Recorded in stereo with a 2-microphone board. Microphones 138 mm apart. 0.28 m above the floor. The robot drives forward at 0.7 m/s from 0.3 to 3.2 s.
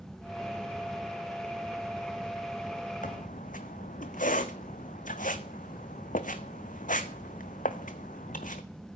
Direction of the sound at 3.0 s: 75° left (ahead or behind).